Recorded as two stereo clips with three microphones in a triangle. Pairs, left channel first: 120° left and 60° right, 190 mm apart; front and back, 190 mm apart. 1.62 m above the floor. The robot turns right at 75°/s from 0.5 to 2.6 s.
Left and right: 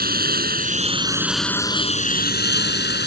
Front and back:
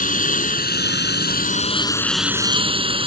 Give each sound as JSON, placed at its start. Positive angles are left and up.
{"t": 0.0, "sound": "a lawn mower", "azimuth_deg": -35}